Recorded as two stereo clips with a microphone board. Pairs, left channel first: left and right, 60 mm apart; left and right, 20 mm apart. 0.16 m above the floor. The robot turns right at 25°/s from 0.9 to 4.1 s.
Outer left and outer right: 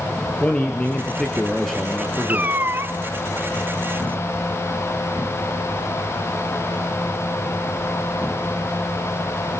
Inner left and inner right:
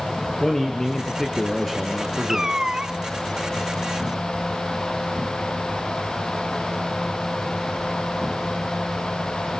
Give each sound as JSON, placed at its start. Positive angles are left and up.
{"t": 0.4, "sound": "a man speaking", "azimuth_deg": 160, "distance_m": 2.5}
{"t": 2.3, "sound": "a cat meowing", "side_deg": -30, "distance_m": 0.6}